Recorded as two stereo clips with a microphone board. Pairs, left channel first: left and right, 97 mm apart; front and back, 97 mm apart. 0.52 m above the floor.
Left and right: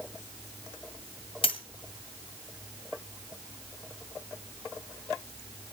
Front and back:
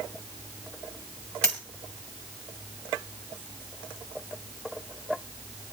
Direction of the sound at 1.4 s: 80° left.